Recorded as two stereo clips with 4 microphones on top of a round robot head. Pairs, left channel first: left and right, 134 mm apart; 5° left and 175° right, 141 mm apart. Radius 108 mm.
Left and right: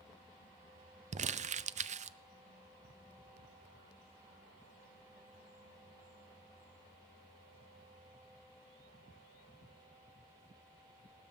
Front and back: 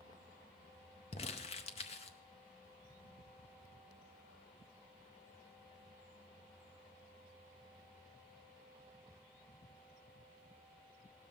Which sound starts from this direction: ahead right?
Crumpling, at 1.1 s.